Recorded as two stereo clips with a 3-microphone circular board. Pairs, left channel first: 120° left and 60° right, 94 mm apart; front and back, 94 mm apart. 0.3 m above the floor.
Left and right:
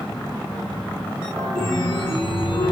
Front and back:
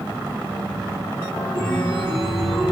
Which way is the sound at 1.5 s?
85° left.